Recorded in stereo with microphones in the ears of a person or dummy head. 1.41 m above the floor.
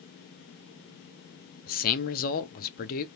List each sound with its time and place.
1.7 s a man speaking: 45° left (ahead or behind), 0.6 m